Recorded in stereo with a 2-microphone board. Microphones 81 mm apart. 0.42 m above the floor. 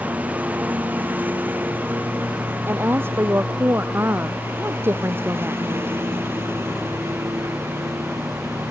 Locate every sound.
0.0 s a lawn mower: 20° right (ahead or behind); by 8.7 s 35° right (ahead or behind)
2.7 s a woman speaking: 30° right (ahead or behind)